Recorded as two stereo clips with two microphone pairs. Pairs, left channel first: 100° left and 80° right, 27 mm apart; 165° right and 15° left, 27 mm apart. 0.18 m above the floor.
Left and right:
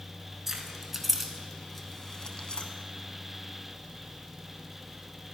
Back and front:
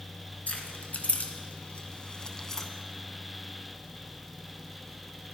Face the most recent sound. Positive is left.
turn(degrees=120)